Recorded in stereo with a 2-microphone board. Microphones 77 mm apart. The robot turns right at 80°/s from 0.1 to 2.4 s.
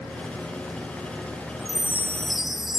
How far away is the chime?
About 1.0 m.